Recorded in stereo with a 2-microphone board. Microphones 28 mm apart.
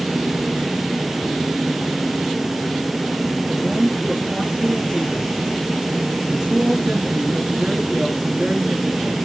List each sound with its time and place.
3.5 s a man speaking: 10° right (ahead or behind), 4 m